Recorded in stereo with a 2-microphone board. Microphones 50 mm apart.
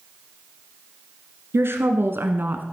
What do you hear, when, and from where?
1.5 s a woman speaking: 60° right (ahead or behind), 2.5 m; by 2.6 s 45° right (ahead or behind), 1.7 m